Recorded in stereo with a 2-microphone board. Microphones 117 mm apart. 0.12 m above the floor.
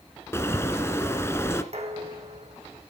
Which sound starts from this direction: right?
Dishes clattering, at 1.7 s.